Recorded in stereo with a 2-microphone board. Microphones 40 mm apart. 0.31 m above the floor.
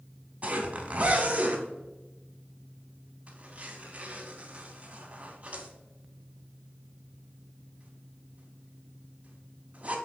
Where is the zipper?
30° right (ahead or behind), 0.5 m.